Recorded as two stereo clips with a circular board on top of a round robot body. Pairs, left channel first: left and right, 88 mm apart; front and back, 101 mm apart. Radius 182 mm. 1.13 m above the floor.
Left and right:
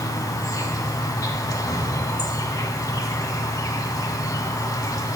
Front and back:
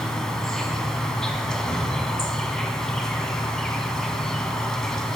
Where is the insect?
80° left, 1.2 m.